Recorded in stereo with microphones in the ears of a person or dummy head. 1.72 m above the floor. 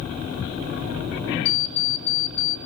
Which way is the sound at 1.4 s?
75° left (ahead or behind).